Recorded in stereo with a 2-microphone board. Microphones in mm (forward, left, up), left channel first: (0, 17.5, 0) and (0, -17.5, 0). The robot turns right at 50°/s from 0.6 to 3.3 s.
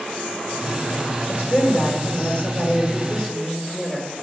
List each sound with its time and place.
1.3 s a woman speaking: 75° left, 1.5 m; by 4.1 s 175° left, 1.5 m